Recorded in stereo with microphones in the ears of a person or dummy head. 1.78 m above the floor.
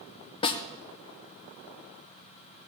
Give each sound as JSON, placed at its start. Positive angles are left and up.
{"t": 0.4, "sound": "a snare drum", "side_deg": 30, "distance_m": 0.8}